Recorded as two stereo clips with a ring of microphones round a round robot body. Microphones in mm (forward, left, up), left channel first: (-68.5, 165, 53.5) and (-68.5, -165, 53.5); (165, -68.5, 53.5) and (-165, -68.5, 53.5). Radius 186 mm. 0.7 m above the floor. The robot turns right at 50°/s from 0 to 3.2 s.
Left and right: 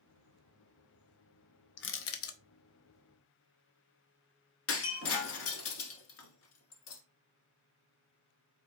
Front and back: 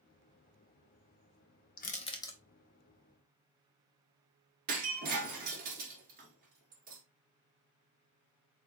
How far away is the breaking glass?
About 0.9 m.